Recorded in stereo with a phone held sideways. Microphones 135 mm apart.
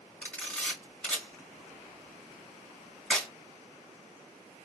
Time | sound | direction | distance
0.2 | a camera shutter | 10° left (ahead or behind) | 1.3 m